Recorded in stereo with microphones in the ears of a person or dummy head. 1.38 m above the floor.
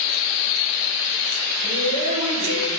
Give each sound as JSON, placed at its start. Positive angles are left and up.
{"t": 1.6, "sound": "a woman speaking", "side_deg": -85, "distance_m": 3.5}